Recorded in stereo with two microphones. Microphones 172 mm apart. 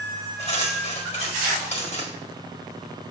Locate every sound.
0.4 s cutlery clinking: 40° left (ahead or behind), 1.5 m